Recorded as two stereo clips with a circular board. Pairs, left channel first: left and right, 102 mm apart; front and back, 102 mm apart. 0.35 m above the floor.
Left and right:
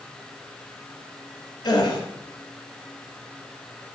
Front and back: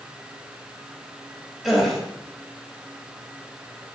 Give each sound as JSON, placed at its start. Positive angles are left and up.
{"t": 1.6, "sound": "a gasp", "azimuth_deg": 90, "distance_m": 2.0}